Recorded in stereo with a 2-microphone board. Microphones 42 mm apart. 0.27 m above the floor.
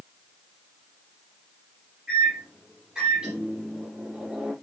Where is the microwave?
15° right (ahead or behind), 6.5 m.